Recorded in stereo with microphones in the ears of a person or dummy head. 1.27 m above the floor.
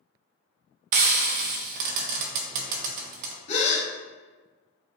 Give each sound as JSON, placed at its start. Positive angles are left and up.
{"t": 0.9, "sound": "frying", "side_deg": -55, "distance_m": 0.6}
{"t": 3.5, "sound": "a gasp", "side_deg": 35, "distance_m": 1.1}